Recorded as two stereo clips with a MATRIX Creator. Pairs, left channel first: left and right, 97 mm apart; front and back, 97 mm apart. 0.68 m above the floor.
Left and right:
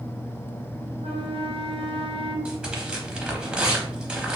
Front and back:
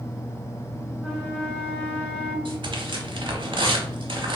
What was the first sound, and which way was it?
A flute, 80° right.